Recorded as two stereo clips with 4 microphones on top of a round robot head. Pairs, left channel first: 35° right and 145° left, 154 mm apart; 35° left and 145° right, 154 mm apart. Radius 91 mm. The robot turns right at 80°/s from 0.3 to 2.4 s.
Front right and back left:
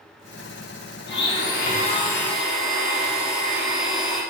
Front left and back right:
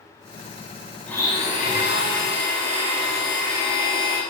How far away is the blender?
About 3 m.